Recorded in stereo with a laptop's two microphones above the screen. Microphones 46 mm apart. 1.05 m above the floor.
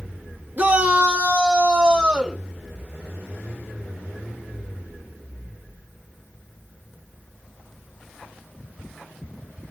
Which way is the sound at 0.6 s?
35° right (ahead or behind).